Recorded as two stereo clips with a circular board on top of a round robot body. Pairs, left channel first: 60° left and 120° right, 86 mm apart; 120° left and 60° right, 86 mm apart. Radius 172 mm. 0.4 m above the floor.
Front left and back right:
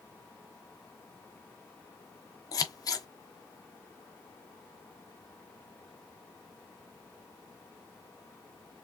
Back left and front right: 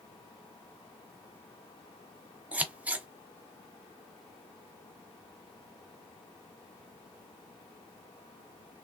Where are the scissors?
15° left, 0.8 m.